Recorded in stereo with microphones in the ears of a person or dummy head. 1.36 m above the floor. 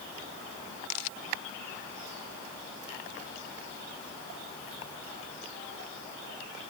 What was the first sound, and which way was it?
Only background noise.